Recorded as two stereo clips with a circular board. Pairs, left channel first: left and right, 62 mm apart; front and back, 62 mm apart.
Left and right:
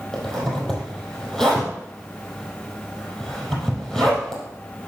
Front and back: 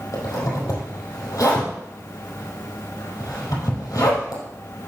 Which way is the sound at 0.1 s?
5° left.